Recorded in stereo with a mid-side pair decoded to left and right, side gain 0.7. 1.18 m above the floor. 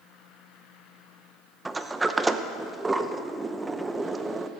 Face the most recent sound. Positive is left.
turn(degrees=-15)